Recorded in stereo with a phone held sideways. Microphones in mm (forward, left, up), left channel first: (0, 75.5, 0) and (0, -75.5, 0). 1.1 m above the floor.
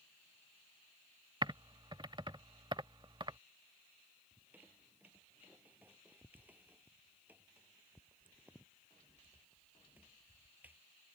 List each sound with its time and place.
1.4 s typing on a keyboard: 30° right (ahead or behind)
4.3 s a squeak: 10° right (ahead or behind)